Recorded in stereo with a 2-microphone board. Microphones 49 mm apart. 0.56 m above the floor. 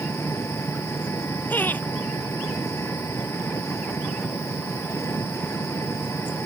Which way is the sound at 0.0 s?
80° left.